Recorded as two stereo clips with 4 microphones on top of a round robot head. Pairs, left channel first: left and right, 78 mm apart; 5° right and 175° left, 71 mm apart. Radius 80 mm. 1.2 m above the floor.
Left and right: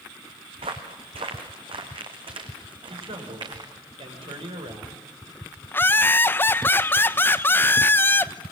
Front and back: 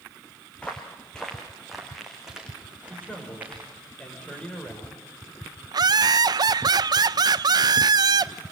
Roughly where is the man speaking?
Right.